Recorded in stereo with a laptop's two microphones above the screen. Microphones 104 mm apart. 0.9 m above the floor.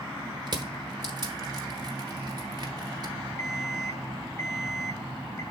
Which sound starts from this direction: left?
An alarm clock, at 3.4 s.